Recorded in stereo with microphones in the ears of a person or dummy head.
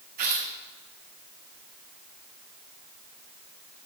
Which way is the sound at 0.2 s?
50° right (ahead or behind).